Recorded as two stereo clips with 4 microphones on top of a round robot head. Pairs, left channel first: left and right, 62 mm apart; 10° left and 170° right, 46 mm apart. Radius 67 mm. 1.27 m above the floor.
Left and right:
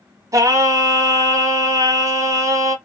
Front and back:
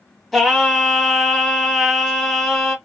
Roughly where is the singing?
Right.